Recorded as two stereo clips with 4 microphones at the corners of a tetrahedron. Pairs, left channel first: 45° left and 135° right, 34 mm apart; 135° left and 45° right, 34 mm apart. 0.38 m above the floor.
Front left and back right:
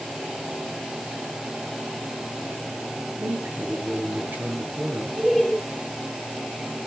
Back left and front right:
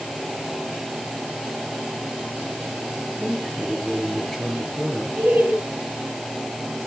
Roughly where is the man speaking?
Behind right.